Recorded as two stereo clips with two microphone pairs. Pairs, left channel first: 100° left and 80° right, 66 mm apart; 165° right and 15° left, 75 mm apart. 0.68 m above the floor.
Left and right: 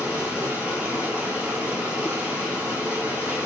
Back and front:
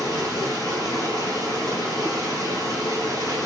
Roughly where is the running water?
Behind right.